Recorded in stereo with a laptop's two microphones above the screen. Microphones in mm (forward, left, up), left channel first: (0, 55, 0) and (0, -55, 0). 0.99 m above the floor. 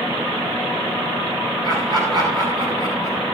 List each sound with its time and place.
1.6 s laughter: 40° right (ahead or behind), 6.5 m